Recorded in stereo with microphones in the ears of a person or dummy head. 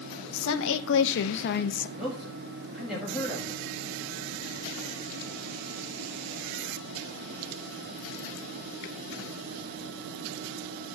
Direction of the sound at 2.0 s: Centre (ahead or behind).